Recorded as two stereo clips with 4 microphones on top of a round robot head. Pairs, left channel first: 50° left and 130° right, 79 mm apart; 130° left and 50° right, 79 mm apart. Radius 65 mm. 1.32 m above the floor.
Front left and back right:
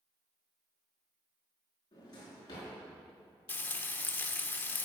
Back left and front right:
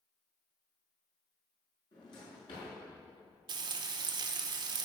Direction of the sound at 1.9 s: 95° left.